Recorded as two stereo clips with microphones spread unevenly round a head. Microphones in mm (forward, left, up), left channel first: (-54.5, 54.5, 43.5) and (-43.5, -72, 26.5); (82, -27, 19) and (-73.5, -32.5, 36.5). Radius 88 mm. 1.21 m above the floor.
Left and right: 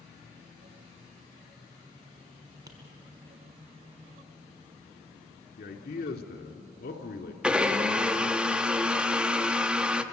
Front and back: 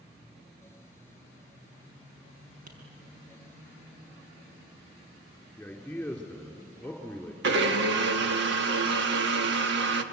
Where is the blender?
170° right, 1.5 m.